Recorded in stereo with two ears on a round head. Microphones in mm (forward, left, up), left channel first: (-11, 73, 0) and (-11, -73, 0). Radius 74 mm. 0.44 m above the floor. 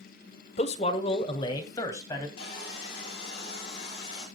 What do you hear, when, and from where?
0.6 s a man speaking: 45° left (ahead or behind), 1.4 m; by 2.3 s 20° left (ahead or behind), 3 m
2.4 s sawing: 35° left (ahead or behind), 9 m